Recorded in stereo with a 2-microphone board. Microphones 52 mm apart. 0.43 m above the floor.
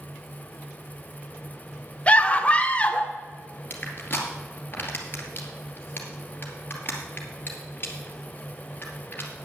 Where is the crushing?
35° left (ahead or behind), 2.5 m.